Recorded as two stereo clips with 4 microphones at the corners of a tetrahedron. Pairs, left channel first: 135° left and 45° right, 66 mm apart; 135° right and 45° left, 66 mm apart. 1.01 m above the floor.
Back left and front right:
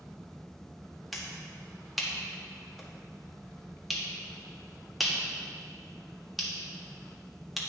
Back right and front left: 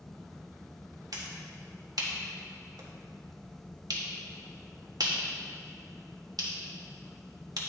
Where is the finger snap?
45° left, 1.4 m.